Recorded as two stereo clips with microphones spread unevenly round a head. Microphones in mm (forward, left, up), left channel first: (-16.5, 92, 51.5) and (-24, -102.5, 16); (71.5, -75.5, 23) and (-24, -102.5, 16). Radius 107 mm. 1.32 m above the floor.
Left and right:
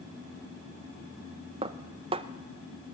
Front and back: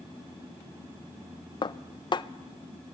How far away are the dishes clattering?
About 0.7 m.